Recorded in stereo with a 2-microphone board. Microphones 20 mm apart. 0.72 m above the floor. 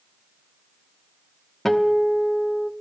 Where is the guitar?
15° left (ahead or behind), 0.9 m.